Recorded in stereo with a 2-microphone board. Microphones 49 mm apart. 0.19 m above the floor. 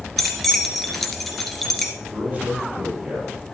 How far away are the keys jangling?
About 2.0 m.